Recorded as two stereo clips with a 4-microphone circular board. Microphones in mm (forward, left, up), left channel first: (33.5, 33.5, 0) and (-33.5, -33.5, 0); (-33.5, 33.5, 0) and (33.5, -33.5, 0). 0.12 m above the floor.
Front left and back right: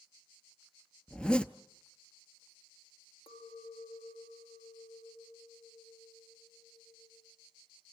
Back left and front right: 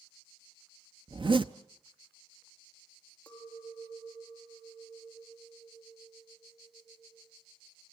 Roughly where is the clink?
Ahead left.